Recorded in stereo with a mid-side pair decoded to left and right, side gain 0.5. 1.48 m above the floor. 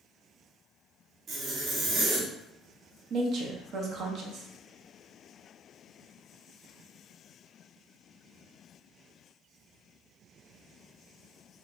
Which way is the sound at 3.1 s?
60° right.